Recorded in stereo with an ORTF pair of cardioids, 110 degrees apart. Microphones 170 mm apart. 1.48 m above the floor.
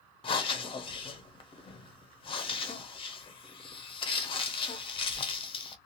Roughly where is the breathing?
Ahead left.